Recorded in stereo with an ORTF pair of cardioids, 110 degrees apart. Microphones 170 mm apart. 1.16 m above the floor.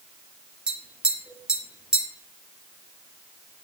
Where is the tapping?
5° right, 0.6 m.